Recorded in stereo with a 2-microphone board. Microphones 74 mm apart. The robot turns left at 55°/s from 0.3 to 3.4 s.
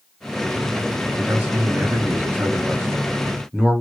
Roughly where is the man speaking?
Centre.